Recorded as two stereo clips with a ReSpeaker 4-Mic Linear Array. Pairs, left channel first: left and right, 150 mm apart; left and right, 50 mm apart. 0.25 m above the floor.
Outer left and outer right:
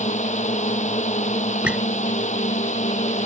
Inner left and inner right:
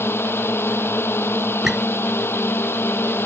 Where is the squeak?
10° right (ahead or behind).